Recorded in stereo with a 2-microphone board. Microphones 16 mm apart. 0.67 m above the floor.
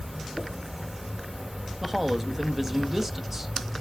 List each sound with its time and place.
0.0 s an insect: 30° right (ahead or behind), 1.9 m
1.8 s a man speaking: 15° right (ahead or behind), 0.8 m